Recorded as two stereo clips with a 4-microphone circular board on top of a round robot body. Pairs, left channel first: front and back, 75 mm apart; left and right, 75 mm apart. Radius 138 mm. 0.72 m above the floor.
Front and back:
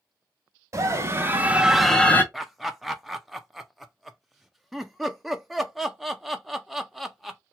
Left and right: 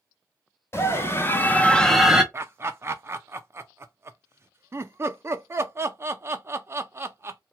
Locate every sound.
0.7 s a scream: 140° left, 1.4 m; by 2.2 s 20° right, 0.8 m
2.3 s laughter: 90° right, 0.5 m